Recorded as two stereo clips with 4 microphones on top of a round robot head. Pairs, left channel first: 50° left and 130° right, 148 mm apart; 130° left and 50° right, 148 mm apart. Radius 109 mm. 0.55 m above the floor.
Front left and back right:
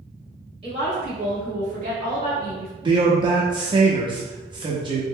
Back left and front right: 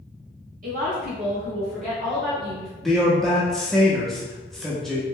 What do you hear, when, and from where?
0.6 s a woman speaking: 75° right, 1.9 m; by 2.7 s 125° right, 1.5 m
2.8 s a man speaking: 145° right, 0.7 m